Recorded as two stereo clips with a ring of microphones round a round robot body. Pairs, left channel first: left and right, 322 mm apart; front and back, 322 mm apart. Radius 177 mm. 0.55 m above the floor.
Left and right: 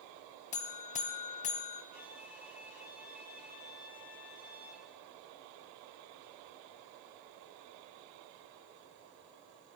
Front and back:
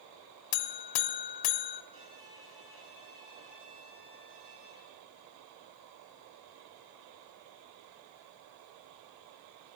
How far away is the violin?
About 5.5 m.